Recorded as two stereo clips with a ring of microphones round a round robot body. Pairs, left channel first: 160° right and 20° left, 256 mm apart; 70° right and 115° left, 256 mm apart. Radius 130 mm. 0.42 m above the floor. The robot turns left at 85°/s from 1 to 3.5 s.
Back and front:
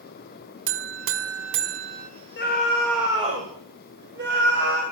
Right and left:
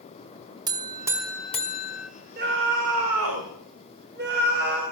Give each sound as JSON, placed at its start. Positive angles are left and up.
{"t": 0.7, "sound": "a buzzer", "azimuth_deg": 40, "distance_m": 1.3}
{"t": 2.4, "sound": "a scream", "azimuth_deg": 165, "distance_m": 2.5}